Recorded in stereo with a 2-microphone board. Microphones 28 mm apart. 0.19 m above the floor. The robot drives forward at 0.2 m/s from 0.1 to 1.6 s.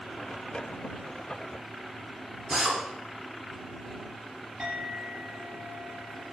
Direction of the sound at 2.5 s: 30° right (ahead or behind).